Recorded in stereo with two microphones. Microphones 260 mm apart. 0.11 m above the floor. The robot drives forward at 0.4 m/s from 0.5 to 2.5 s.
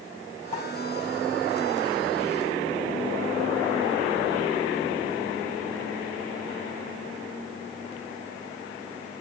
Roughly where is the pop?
Left.